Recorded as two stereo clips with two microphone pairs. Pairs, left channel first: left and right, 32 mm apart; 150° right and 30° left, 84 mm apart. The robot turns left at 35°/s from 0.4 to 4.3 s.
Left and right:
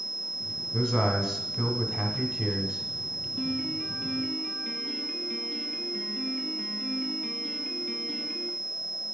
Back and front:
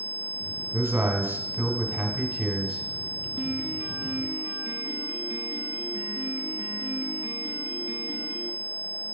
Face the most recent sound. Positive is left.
turn(degrees=65)